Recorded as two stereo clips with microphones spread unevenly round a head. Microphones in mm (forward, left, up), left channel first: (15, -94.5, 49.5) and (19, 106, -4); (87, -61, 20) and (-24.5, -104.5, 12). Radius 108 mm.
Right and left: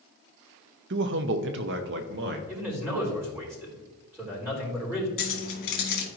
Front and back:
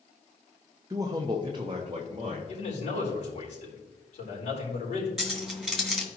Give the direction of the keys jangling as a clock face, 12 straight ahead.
2 o'clock.